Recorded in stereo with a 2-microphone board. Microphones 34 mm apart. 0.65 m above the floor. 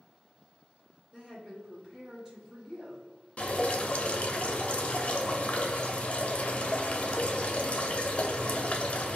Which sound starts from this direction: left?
Dripping, at 3.4 s.